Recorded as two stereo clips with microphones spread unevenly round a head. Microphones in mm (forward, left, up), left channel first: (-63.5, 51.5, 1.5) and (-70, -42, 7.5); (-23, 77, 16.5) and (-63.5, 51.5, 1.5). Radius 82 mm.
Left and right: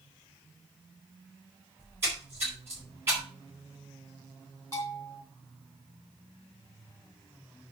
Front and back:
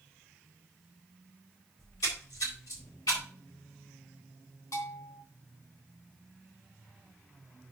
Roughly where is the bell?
Ahead.